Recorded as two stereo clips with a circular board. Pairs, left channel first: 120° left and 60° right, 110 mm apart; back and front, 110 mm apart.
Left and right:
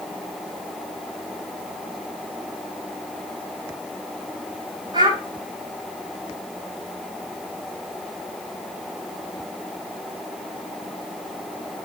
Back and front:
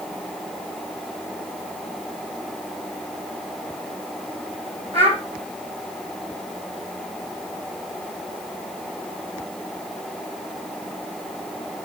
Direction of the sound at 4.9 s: 10° right.